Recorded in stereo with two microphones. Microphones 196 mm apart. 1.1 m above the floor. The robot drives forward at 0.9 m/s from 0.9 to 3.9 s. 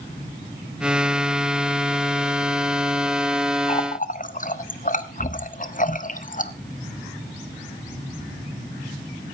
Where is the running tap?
35° left (ahead or behind), 0.9 m; by 6.5 s 45° left (ahead or behind), 0.8 m.